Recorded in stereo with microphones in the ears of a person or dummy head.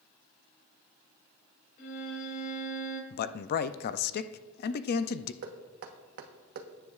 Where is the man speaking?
55° left (ahead or behind), 0.5 m.